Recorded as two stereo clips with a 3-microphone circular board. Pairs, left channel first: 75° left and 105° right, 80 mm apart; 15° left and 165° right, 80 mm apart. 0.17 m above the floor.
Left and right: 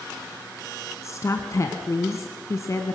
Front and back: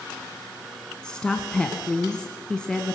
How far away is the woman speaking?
About 1.5 m.